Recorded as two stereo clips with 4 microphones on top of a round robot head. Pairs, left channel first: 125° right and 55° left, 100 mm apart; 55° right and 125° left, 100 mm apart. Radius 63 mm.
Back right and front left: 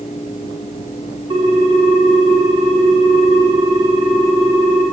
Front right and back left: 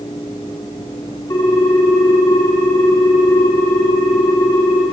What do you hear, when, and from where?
1.3 s a ringtone: 5° left, 2 m